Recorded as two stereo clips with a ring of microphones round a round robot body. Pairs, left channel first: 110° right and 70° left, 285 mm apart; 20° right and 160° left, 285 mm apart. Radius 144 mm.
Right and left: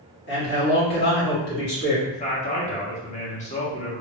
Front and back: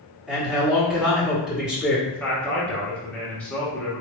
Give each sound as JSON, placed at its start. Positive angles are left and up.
{"t": 0.3, "sound": "a man speaking", "azimuth_deg": -115, "distance_m": 1.4}
{"t": 2.1, "sound": "a man speaking", "azimuth_deg": -100, "distance_m": 1.0}